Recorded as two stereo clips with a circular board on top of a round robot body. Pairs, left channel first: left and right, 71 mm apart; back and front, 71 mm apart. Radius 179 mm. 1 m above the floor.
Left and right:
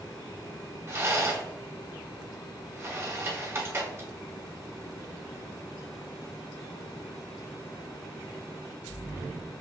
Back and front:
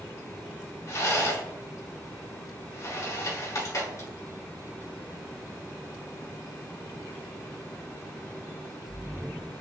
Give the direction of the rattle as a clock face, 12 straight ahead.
5 o'clock.